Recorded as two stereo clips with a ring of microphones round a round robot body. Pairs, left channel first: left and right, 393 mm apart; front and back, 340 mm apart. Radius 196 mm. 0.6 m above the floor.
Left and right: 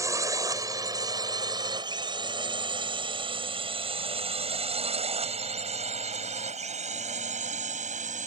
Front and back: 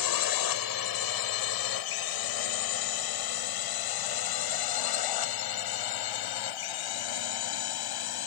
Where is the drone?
10° right; by 8.3 s 20° right.